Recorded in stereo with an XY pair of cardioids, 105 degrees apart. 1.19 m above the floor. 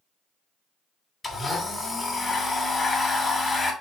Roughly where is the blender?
Ahead left.